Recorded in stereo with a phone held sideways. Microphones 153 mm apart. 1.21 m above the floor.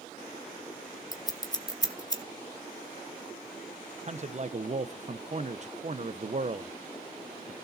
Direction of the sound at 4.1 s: 50° right (ahead or behind).